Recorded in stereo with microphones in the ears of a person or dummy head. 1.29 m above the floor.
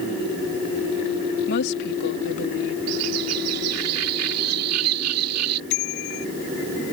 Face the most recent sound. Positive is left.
turn(degrees=65)  # may be behind; listen again after turning